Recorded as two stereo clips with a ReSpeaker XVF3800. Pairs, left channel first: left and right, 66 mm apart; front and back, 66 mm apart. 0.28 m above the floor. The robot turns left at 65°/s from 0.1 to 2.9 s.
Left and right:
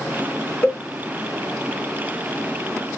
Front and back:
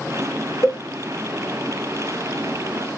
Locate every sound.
0.6 s a cowbell: 35° left, 0.6 m; by 0.8 s 25° left, 0.6 m